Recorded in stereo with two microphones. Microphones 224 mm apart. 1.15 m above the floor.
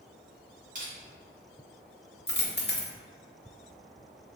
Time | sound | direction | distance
0.8 | crushing | 40° right (ahead or behind) | 1.6 m
2.3 | a dropped coin | 50° left (ahead or behind) | 0.6 m